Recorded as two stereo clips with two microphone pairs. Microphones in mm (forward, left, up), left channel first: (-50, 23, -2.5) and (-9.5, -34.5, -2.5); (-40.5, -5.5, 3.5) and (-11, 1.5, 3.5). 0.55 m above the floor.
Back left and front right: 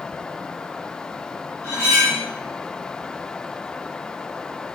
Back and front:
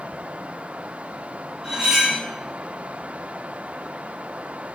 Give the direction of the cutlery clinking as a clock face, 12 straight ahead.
9 o'clock.